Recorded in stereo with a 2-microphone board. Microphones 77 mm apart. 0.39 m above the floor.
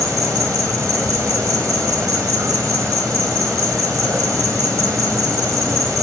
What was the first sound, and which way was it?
An insect, 45° right (ahead or behind).